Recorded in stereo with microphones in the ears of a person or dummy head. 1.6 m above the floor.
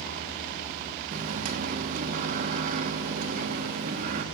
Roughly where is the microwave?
Right.